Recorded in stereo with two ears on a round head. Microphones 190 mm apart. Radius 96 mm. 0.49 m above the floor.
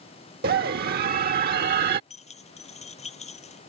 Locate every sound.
0.4 s a scream: 45° right (ahead or behind)
2.1 s keys jangling: 35° left (ahead or behind)